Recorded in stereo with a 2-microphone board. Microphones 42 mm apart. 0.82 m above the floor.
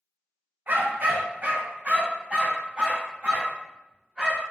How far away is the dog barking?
About 0.9 m.